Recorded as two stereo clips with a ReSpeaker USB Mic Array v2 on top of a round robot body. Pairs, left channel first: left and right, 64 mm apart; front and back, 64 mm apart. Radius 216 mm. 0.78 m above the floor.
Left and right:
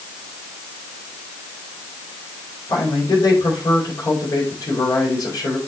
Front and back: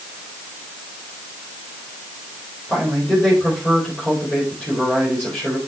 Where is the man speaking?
70° left, 4.5 m.